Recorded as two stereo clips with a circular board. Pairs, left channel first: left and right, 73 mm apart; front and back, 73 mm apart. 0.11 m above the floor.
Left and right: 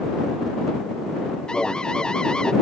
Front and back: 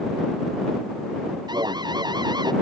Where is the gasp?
I don't hear a gasp.